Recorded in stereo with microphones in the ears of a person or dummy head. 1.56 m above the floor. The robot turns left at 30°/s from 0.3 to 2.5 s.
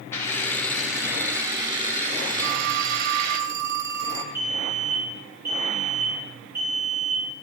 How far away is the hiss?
About 4 m.